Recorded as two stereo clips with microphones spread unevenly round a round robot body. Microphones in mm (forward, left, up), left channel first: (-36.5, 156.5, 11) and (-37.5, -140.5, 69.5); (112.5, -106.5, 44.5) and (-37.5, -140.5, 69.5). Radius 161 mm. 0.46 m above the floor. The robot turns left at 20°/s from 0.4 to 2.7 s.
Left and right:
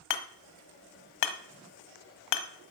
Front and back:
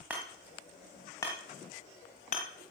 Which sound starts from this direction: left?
Hammering, at 0.1 s.